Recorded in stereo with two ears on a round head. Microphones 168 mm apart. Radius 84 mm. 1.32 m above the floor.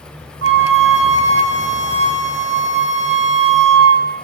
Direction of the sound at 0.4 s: 70° right (ahead or behind).